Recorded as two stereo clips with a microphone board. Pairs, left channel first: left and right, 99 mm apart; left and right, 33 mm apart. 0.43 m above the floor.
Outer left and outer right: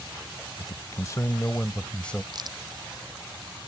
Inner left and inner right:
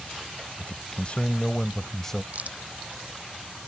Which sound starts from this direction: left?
A man speaking, at 0.6 s.